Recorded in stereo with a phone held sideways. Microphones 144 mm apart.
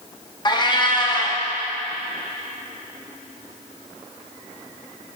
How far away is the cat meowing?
About 0.6 m.